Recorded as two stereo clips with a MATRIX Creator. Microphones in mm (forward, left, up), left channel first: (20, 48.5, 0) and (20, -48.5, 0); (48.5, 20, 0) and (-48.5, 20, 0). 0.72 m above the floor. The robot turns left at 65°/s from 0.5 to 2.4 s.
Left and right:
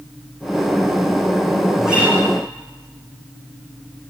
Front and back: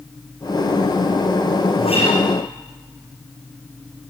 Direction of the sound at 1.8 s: Straight ahead.